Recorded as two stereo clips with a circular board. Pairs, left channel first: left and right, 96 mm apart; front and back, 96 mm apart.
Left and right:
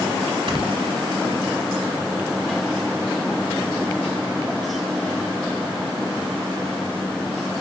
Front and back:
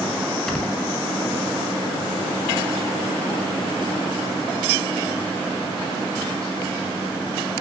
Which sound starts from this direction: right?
Snoring, at 0.5 s.